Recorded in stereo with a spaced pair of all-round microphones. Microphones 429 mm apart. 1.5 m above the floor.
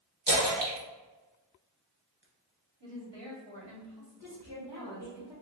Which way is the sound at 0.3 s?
75° right (ahead or behind).